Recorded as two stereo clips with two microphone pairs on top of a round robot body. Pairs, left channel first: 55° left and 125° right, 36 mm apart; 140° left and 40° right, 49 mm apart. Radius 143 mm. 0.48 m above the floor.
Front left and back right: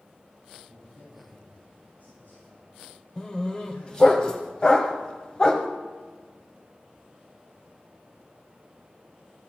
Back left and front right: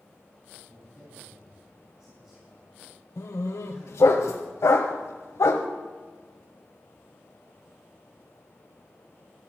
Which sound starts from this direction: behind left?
A dog barking, at 3.2 s.